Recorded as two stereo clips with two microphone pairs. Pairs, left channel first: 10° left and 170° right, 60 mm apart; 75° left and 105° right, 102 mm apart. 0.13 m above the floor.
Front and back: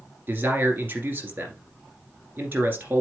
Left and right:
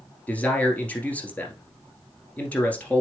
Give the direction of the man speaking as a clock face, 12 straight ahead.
7 o'clock.